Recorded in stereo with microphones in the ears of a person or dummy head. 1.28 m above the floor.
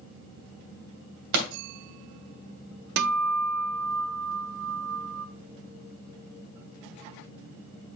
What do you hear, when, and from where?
1.3 s a pop: 65° right (ahead or behind), 2.5 m
3.0 s a guitar: 55° right (ahead or behind), 0.6 m